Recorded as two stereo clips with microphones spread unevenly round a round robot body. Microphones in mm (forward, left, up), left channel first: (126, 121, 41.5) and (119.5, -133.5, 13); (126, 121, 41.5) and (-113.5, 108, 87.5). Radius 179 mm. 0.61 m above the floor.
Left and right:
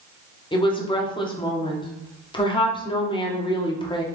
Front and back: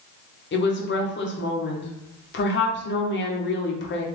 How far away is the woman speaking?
About 1.0 m.